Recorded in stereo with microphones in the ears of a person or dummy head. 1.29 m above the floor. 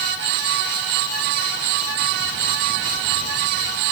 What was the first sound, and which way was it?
Only background noise.